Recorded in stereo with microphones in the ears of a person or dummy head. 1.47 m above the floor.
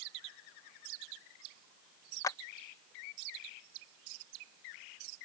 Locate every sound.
2.2 s a clap: 15° left (ahead or behind)